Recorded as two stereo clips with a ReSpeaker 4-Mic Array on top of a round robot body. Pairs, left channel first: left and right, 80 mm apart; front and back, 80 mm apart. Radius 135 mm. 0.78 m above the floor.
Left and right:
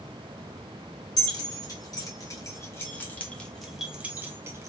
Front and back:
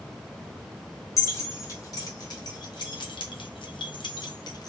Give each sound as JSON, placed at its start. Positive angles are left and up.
{"t": 1.2, "sound": "keys jangling", "azimuth_deg": 55, "distance_m": 1.8}